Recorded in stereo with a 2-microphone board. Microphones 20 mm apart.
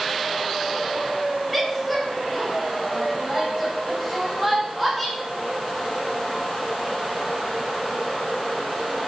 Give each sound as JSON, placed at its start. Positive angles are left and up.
{"t": 1.5, "sound": "a woman speaking", "side_deg": -5, "distance_m": 4.5}